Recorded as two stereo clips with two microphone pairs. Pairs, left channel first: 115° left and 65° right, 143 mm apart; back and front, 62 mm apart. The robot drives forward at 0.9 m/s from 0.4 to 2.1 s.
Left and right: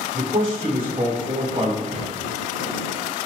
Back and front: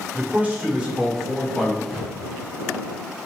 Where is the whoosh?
70° right, 3.5 m; by 2.1 s 75° right, 3.5 m.